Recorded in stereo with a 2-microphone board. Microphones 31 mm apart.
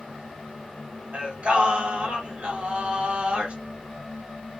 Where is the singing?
40° right (ahead or behind), 1.4 m.